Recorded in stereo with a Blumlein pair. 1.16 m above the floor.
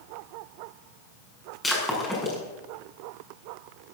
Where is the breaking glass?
10° left, 6.5 m.